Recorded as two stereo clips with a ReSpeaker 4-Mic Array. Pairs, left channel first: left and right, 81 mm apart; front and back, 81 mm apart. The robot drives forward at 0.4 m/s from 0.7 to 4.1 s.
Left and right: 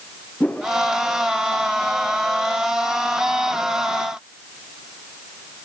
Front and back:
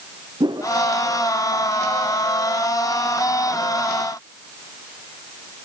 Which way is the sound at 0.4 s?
165° left.